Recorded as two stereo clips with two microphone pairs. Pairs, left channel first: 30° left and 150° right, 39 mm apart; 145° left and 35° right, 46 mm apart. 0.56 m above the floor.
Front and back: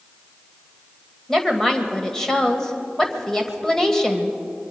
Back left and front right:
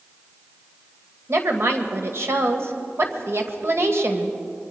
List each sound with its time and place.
1.3 s a woman speaking: 45° right, 2 m